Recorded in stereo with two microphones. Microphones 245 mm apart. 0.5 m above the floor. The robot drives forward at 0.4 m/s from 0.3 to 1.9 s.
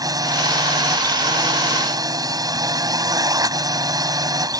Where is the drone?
15° right (ahead or behind).